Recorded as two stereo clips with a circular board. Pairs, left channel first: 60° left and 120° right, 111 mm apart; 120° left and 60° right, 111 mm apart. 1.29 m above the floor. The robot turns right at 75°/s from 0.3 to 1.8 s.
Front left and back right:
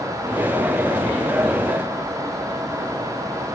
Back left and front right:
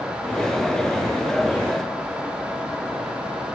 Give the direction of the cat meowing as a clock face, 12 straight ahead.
No cat meowing in this recording.